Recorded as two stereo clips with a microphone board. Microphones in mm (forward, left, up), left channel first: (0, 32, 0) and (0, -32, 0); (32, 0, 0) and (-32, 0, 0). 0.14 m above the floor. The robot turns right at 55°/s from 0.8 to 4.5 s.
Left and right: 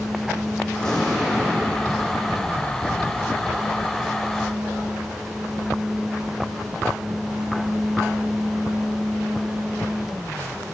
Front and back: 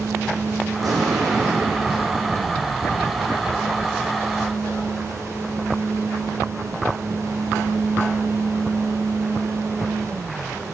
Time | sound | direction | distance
0.8 | an explosion | 165° left | 1.6 m